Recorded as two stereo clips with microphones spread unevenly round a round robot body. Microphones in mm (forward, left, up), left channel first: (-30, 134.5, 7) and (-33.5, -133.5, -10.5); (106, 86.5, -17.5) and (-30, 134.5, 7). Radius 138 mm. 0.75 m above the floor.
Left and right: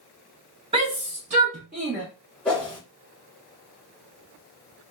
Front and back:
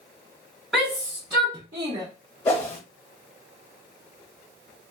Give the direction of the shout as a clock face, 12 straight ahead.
3 o'clock.